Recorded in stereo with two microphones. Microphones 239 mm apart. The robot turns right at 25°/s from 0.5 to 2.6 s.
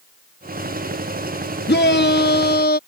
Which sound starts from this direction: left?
A shout, at 1.7 s.